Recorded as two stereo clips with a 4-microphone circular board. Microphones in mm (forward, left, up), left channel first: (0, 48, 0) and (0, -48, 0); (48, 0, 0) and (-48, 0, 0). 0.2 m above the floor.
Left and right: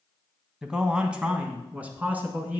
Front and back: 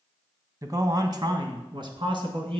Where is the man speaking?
170° right, 1.1 m; by 2.6 s 160° right, 1.9 m.